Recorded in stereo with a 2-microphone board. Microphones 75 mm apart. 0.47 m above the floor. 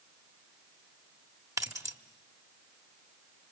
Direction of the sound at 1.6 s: 45° right (ahead or behind).